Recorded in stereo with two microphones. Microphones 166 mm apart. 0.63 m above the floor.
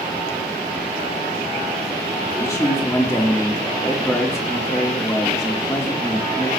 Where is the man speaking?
20° left (ahead or behind), 1.6 m.